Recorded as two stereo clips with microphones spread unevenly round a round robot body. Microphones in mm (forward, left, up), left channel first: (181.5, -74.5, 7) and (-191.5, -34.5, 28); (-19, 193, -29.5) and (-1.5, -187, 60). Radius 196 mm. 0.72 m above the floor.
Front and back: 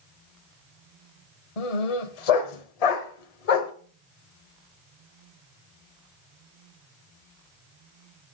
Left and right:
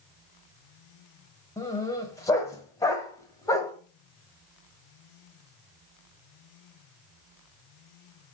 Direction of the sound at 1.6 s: 10° left.